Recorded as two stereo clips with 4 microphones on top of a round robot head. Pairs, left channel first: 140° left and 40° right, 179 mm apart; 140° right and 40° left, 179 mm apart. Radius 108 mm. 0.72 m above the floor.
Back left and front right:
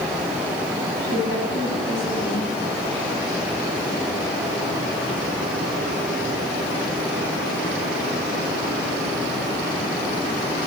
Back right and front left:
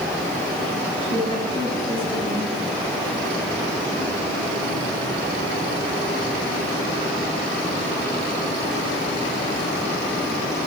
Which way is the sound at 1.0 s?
155° left.